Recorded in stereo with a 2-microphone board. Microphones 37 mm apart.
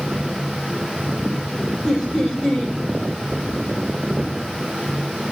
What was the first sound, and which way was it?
Laughter, 15° left (ahead or behind).